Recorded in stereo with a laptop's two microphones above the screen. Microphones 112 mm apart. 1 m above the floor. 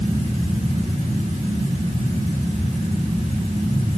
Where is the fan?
85° right, 7 m.